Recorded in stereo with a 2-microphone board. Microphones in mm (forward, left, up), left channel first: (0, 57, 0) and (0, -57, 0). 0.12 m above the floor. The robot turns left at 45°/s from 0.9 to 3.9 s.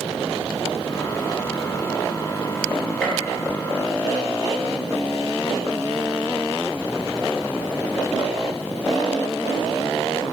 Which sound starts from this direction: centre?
A gunshot, at 3.0 s.